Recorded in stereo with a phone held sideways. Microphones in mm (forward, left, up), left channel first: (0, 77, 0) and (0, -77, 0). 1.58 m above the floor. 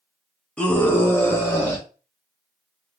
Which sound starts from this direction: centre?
A scream, at 0.6 s.